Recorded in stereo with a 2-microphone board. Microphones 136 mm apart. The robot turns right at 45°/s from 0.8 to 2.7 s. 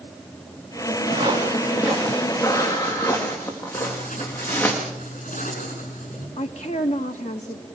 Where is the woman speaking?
60° left (ahead or behind), 1.2 m.